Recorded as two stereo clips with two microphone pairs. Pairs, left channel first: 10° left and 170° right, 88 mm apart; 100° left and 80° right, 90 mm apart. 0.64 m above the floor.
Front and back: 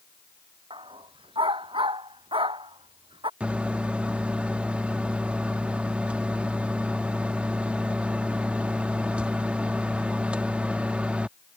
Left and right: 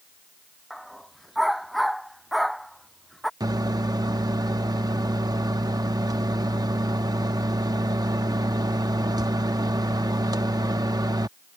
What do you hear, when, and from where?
0.7 s a dog barking: 170° right
3.4 s a microwave: 100° right